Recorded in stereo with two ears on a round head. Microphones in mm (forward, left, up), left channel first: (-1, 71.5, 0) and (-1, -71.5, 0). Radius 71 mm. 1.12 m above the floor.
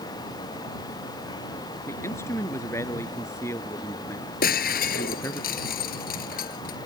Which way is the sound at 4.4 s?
60° left (ahead or behind).